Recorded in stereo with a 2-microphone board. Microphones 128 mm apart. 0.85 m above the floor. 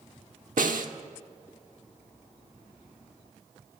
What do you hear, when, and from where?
0.6 s a snare drum: 85° right, 1.2 m